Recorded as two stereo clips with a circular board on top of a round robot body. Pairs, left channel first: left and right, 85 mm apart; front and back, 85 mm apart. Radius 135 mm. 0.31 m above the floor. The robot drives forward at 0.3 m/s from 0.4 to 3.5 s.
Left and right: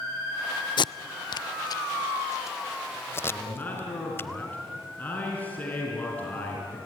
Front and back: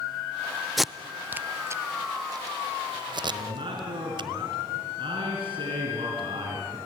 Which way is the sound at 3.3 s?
160° left.